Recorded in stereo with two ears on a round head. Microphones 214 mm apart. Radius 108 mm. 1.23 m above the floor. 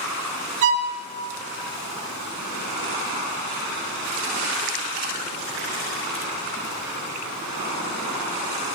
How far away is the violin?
About 1.5 m.